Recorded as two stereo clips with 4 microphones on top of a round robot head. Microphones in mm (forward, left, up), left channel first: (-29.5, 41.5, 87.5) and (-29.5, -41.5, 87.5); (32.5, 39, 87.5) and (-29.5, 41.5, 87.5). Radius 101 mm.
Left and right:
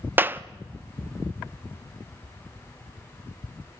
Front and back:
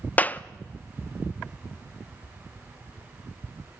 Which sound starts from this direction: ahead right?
A clap, at 0.2 s.